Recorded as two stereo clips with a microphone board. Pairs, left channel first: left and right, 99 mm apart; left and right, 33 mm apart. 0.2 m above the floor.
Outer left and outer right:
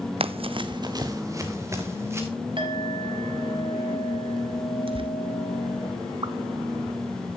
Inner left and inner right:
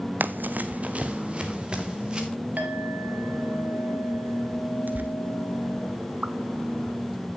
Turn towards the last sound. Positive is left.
turn(degrees=-60)  # may be behind; listen again after turning